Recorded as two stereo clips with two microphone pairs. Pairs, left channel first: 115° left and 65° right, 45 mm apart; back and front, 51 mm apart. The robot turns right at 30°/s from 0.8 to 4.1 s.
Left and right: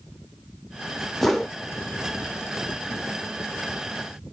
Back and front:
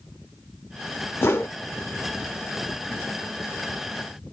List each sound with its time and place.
1.2 s a whoosh: 160° right, 0.5 m; by 1.6 s 150° right, 0.5 m